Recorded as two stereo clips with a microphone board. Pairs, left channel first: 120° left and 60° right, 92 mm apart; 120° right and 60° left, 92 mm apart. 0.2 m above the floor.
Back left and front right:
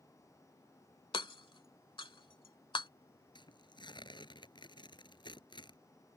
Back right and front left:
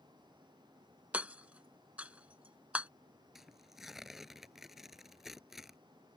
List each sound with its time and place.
1.1 s hammering: 135° left
3.4 s tearing paper: 145° left